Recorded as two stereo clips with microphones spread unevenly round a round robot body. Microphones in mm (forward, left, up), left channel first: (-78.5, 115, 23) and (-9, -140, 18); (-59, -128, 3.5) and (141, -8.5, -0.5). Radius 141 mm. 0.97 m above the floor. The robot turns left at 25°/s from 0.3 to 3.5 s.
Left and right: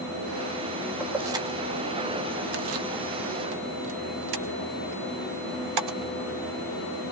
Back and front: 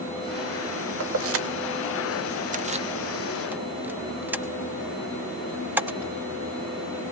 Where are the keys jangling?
10° left, 0.9 m; by 6.1 s 50° right, 0.9 m.